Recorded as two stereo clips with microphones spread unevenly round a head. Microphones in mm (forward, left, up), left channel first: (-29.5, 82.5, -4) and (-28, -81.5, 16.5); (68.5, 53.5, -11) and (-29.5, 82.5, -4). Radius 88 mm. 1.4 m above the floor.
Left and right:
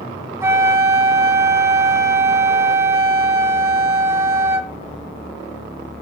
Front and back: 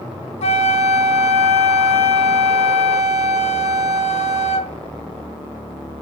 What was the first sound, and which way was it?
A flute, 15° right.